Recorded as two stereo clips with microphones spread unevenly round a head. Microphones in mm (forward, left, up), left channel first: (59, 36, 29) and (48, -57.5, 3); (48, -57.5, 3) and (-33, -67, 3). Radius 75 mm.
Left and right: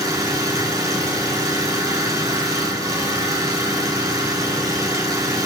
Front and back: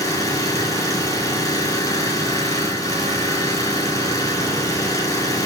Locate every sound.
0.0 s an engine running: 40° right, 4.5 m